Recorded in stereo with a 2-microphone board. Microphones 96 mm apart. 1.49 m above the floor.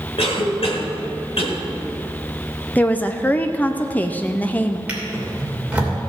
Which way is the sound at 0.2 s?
75° left (ahead or behind).